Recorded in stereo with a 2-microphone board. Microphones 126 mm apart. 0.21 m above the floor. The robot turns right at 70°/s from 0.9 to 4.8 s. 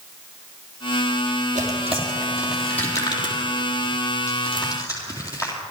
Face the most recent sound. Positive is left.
turn(degrees=25)  # may be behind; listen again after turning